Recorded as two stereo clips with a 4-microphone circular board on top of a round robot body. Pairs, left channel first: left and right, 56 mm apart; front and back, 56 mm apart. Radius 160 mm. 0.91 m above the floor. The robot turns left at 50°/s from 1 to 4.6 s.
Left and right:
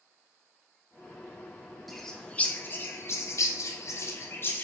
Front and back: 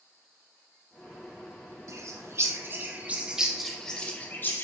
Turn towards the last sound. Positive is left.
turn(degrees=40)